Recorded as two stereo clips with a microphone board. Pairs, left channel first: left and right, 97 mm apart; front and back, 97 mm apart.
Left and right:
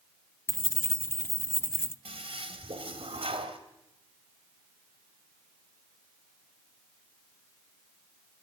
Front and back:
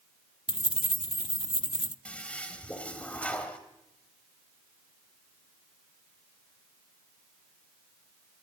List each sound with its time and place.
0.5 s keys jangling: 25° left, 0.6 m
2.0 s a toilet flushing: 75° right, 2.5 m